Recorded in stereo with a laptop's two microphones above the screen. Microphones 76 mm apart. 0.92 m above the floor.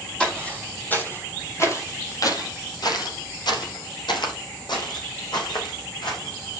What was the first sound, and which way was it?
Footsteps, 15° left (ahead or behind).